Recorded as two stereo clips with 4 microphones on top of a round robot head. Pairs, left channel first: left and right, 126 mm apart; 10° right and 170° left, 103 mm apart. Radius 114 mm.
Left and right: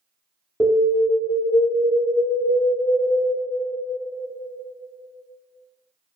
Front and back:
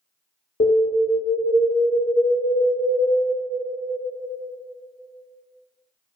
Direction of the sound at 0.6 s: 5° right.